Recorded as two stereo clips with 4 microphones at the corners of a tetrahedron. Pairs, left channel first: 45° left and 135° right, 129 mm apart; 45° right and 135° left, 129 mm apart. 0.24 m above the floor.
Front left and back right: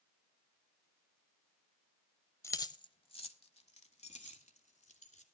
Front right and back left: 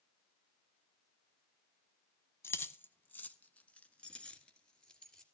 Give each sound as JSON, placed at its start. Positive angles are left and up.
{"t": 2.4, "sound": "keys jangling", "azimuth_deg": 0, "distance_m": 0.8}